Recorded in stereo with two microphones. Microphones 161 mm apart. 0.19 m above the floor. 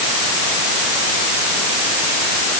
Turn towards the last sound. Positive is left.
No sound to turn to.